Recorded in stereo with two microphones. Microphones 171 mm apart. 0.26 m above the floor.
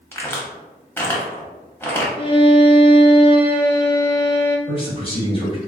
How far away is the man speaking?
About 1.1 m.